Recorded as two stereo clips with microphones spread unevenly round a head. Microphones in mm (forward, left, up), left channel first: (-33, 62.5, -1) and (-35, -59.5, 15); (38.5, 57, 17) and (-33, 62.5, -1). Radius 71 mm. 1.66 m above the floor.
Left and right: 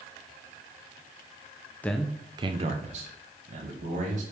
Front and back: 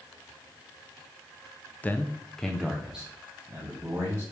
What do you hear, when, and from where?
1.8 s a man speaking: 10° left, 0.5 m; by 4.2 s 105° right, 1.7 m